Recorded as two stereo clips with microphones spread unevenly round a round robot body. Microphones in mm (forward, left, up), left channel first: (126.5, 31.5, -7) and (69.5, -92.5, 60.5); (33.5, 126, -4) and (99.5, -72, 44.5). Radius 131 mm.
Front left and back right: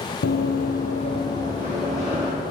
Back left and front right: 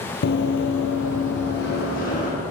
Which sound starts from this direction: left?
Running footsteps, at 0.2 s.